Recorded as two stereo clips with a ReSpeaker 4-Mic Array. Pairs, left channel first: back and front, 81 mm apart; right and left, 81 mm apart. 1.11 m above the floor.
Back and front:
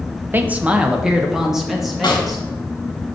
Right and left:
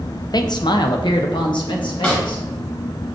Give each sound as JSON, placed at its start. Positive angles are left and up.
{"t": 0.3, "sound": "a man speaking", "azimuth_deg": -65, "distance_m": 0.5}
{"t": 2.0, "sound": "a snare drum", "azimuth_deg": -160, "distance_m": 1.5}